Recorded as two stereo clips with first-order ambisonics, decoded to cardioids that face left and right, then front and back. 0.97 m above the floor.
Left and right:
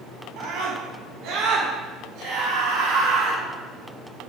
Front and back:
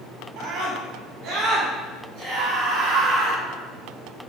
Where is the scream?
130° right, 6.5 m; by 3.4 s 120° right, 8.5 m.